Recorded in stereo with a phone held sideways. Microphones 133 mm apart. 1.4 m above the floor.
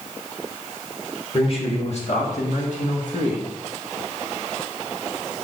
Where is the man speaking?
45° left (ahead or behind), 1.8 m; by 3.5 s 80° left, 2 m.